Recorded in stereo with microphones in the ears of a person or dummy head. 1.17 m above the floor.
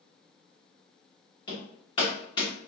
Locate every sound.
1.5 s hammering: 25° left (ahead or behind), 1.1 m